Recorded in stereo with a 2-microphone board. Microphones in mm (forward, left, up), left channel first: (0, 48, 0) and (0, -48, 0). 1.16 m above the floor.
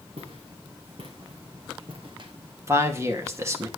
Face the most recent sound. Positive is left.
turn(degrees=-25)  # may be behind; listen again after turning